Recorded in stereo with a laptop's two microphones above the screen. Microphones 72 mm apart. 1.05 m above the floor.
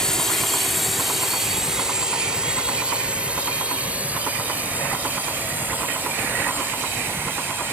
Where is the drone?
10° left (ahead or behind); by 7.7 s 30° right (ahead or behind).